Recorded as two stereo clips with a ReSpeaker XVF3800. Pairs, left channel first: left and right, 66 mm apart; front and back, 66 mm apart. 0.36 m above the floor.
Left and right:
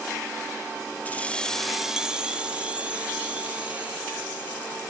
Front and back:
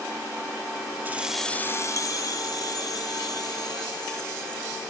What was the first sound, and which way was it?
Keys jangling, 140° left.